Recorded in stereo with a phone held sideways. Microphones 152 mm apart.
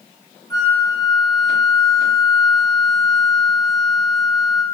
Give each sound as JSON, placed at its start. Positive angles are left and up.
{"t": 0.5, "sound": "a flute", "side_deg": 25, "distance_m": 1.6}